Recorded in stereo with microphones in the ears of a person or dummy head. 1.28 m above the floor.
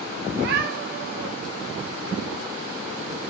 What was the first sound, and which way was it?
A cat meowing, 60° right (ahead or behind).